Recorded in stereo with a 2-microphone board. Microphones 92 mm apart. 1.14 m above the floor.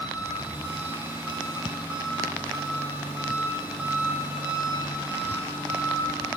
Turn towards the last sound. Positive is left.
turn(degrees=-25)  # may be behind; listen again after turning